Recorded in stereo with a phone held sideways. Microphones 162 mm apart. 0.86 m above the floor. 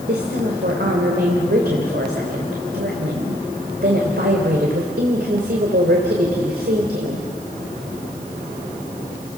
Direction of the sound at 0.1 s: 80° right.